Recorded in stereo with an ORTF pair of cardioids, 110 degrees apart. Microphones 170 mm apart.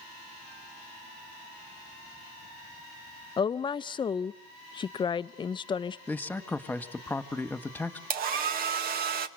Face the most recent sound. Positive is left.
turn(degrees=-65)